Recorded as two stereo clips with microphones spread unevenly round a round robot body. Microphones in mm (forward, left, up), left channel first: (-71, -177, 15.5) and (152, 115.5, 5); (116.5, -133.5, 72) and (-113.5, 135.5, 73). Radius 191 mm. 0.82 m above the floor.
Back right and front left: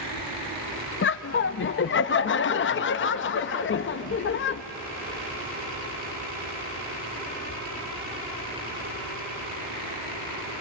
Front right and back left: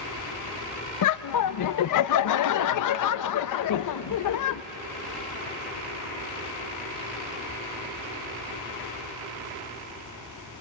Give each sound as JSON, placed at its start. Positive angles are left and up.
{"t": 1.0, "sound": "laughter", "azimuth_deg": -70, "distance_m": 0.7}